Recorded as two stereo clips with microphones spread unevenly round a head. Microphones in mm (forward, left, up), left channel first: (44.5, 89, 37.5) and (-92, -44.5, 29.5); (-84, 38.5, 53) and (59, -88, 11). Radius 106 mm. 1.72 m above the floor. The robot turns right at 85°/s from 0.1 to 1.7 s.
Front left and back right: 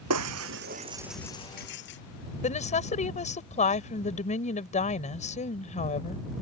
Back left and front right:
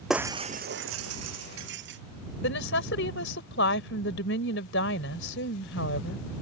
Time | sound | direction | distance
0.1 | breaking glass | 135° right | ?
2.4 | a woman speaking | 100° left | ?